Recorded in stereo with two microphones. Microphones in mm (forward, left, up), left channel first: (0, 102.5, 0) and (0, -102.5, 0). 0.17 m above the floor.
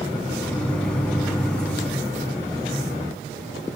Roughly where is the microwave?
Centre.